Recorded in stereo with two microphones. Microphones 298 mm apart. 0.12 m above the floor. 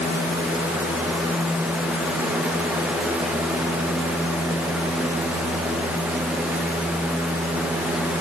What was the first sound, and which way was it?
Only background noise.